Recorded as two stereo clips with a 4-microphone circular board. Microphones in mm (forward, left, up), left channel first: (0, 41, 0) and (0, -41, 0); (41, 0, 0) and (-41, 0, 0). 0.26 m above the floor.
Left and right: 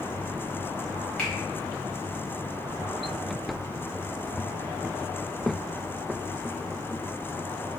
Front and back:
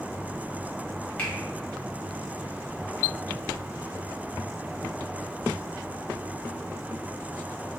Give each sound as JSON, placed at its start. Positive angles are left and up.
{"t": 1.2, "sound": "a finger snap", "azimuth_deg": 40, "distance_m": 1.2}